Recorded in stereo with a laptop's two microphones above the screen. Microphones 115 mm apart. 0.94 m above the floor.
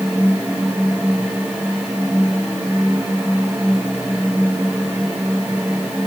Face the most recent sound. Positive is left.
turn(degrees=-20)  # may be behind; listen again after turning